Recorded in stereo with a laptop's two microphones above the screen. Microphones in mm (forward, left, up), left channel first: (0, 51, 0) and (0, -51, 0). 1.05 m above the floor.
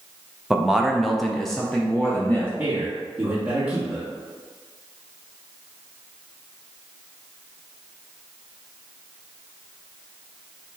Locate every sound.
0.5 s a man speaking: 5° right (ahead or behind), 0.7 m; by 2.5 s 5° left (ahead or behind), 0.9 m
2.6 s a man speaking: 10° right (ahead or behind), 1.6 m